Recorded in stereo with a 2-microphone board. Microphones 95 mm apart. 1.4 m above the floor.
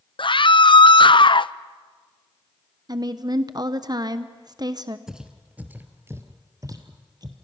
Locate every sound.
0.2 s a scream: 60° left (ahead or behind), 0.6 m
2.9 s a woman speaking: 45° right (ahead or behind), 0.9 m
5.1 s footsteps: 5° right (ahead or behind), 1.7 m; by 7.3 s 45° right (ahead or behind), 2 m